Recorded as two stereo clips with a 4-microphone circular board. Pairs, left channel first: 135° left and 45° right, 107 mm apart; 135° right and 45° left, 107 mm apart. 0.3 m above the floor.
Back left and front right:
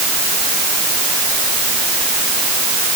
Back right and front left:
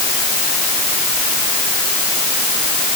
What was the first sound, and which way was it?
Only background noise.